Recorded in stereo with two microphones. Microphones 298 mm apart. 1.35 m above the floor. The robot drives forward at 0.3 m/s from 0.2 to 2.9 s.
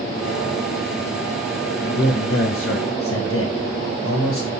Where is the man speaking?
40° left (ahead or behind), 1.6 m; by 4.5 s 50° left (ahead or behind), 1.4 m.